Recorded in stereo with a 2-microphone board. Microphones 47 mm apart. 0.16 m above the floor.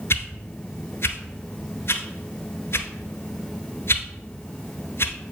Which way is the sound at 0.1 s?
60° left (ahead or behind).